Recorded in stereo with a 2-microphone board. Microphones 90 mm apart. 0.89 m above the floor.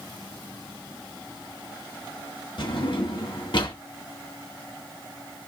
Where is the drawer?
60° left (ahead or behind), 1.9 m.